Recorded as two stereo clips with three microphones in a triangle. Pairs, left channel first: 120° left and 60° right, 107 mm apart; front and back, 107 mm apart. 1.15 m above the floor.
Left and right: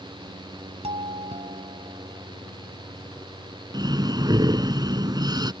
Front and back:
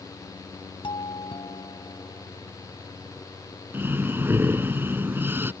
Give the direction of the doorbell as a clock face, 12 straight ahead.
1 o'clock.